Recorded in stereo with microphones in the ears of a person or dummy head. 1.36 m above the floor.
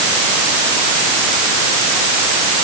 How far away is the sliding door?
No sliding door in this recording.